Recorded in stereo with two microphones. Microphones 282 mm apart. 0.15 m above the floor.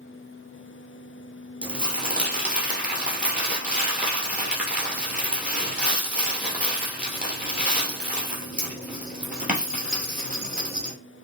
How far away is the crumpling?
About 1.6 m.